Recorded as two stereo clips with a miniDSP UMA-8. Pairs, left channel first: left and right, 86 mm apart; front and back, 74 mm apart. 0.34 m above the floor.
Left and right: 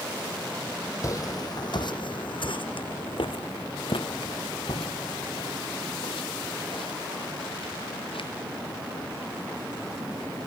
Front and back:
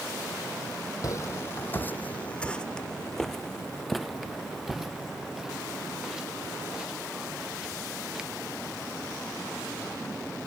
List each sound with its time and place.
1.0 s footsteps: 40° left; by 8.3 s 100° left